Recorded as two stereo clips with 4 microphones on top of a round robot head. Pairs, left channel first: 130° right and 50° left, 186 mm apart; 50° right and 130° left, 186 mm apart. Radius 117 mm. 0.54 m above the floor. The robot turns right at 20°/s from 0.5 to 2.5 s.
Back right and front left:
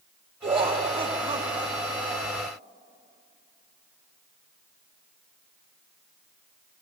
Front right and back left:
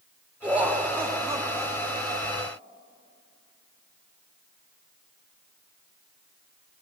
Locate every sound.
0.4 s laughter: 55° left, 0.7 m; by 2.5 s 95° left, 0.7 m